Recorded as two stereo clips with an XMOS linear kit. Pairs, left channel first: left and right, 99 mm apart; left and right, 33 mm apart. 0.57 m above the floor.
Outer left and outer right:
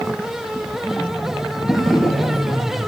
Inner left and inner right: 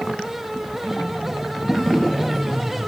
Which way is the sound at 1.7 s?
Centre (ahead or behind).